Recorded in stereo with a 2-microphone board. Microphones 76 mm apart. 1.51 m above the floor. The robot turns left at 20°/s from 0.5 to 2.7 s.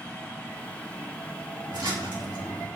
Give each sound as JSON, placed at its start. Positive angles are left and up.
{"t": 1.7, "sound": "a splash", "side_deg": -75, "distance_m": 5.0}